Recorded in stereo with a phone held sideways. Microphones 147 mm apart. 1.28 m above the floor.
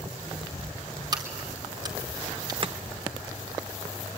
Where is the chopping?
40° right (ahead or behind), 0.8 m.